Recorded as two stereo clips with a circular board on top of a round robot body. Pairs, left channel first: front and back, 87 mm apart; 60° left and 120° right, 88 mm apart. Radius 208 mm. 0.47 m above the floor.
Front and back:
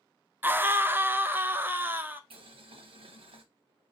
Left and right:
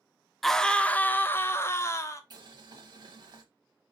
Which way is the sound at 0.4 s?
145° left.